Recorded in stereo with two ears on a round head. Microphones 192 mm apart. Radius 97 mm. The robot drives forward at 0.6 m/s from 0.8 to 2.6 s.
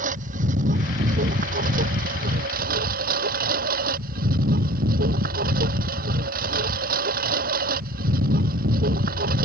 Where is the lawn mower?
35° right (ahead or behind); by 9.4 s 40° right (ahead or behind).